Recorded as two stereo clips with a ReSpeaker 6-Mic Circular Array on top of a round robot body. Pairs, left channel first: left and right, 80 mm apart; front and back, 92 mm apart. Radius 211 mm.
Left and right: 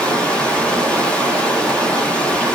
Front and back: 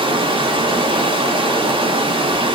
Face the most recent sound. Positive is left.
turn(degrees=165)